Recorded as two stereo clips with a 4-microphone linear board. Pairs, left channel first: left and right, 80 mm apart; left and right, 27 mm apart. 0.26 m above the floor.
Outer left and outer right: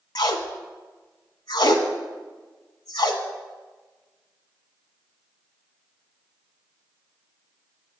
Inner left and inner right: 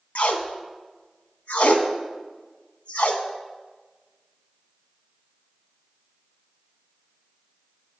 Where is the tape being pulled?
70° left (ahead or behind), 0.7 m.